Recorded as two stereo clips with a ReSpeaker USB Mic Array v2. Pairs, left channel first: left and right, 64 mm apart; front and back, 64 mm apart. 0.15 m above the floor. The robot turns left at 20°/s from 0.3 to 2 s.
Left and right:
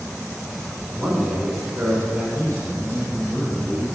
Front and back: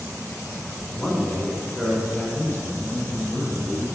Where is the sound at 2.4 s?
40° left, 1.4 m.